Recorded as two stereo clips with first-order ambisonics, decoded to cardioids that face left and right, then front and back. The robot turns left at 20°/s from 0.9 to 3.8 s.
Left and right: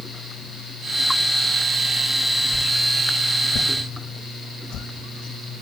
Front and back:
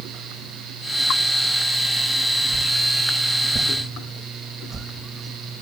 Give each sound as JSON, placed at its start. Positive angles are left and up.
{"t": 2.5, "sound": "a whoosh", "azimuth_deg": 140, "distance_m": 1.1}